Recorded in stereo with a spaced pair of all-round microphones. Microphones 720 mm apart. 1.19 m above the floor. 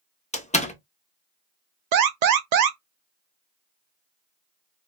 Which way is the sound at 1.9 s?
70° right (ahead or behind).